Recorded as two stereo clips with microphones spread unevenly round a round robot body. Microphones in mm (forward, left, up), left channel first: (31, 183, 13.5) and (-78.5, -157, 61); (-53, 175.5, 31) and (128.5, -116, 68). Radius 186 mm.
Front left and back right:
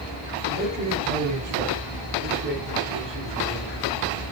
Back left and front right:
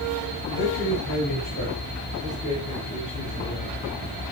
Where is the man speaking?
175° left, 8.5 m; by 3.9 s 160° right, 8 m.